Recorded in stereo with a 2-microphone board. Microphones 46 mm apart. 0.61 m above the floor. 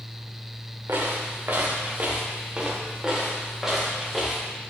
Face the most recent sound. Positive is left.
turn(degrees=5)  # may be behind; listen again after turning